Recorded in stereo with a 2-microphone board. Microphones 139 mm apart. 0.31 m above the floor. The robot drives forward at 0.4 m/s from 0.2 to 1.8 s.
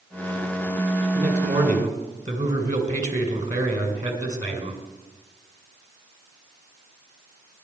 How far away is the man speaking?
About 2.5 m.